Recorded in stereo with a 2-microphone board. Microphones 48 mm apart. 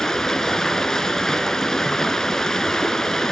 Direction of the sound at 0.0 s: 10° left (ahead or behind).